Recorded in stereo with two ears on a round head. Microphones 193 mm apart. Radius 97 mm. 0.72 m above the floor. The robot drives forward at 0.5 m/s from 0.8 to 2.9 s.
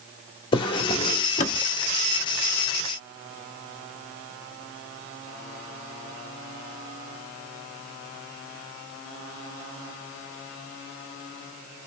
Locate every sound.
0.5 s a drawer: 20° left (ahead or behind), 1.0 m; by 1.6 s 35° left (ahead or behind), 0.6 m